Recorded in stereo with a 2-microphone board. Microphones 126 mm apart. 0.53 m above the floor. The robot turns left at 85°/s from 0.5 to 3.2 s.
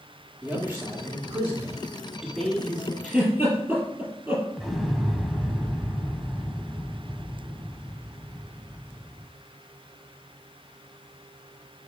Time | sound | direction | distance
0.4 | a man speaking | 10° right (ahead or behind) | 1.3 m
3.0 | a giggle | centre (ahead or behind) | 4 m
4.6 | an explosion | centre (ahead or behind) | 0.8 m